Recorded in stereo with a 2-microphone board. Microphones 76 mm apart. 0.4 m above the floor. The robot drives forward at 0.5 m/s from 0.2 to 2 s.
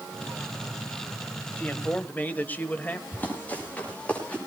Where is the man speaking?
20° left (ahead or behind), 1.5 m.